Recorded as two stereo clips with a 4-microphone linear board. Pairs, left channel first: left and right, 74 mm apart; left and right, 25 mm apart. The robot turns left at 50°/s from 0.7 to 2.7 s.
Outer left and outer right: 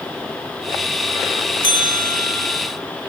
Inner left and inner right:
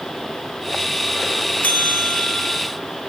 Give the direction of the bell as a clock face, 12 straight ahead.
9 o'clock.